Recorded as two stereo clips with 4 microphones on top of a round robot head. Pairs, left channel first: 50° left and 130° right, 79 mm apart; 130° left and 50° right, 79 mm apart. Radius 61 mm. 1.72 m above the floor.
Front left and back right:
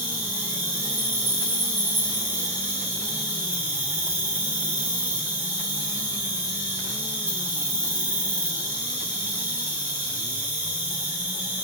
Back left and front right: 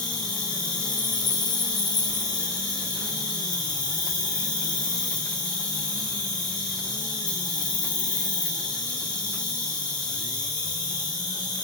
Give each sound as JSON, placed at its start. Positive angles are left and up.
{"t": 0.0, "sound": "an insect", "azimuth_deg": 165, "distance_m": 4.5}